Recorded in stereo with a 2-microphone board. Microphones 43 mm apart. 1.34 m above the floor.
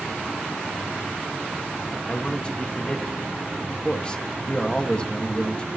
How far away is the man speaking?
About 1.7 m.